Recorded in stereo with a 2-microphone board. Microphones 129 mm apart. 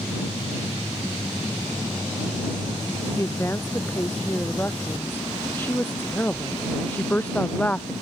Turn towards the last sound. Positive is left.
turn(degrees=10)  # may be behind; listen again after turning